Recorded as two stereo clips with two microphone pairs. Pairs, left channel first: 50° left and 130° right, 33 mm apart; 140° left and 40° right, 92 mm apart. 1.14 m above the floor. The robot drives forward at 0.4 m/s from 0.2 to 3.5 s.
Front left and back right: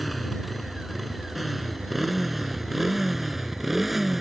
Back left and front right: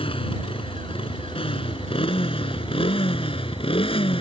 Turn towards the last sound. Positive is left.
turn(degrees=145)